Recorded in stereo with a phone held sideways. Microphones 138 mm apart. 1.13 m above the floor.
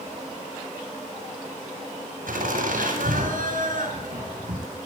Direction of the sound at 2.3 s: 85° right.